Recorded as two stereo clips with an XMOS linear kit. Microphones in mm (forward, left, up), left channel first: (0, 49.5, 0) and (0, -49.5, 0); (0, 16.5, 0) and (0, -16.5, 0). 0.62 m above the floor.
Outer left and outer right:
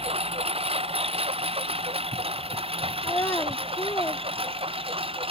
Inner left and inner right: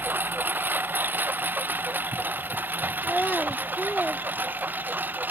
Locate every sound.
0.0 s a lawn mower: 80° right; by 5.3 s 70° right (ahead or behind)
3.0 s a child speaking: 30° left (ahead or behind)